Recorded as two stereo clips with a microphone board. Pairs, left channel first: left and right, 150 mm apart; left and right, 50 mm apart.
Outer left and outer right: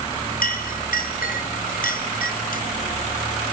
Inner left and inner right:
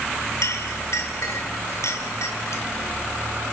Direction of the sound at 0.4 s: 70° left (ahead or behind).